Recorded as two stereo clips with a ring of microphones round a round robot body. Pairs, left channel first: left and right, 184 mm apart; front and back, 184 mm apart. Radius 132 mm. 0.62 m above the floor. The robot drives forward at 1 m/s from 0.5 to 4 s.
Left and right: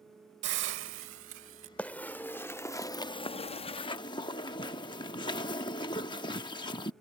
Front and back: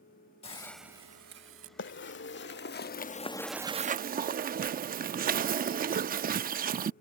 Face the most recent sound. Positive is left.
turn(degrees=155)